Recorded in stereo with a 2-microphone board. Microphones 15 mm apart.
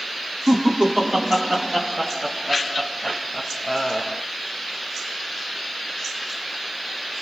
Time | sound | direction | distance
0.5 | laughter | 60° right (ahead or behind) | 2 m